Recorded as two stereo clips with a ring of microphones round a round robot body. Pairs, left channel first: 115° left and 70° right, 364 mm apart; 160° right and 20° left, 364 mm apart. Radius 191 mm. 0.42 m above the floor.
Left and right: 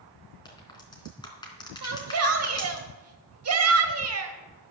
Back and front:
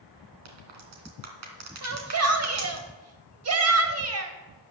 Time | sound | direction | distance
0.5 | a crack | 35° left | 3 m
1.8 | a shout | 25° right | 2.5 m